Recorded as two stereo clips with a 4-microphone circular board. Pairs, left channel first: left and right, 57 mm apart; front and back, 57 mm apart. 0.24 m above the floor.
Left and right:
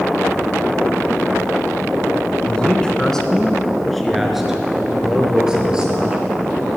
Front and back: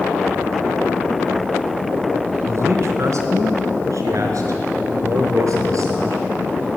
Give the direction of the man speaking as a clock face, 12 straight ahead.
7 o'clock.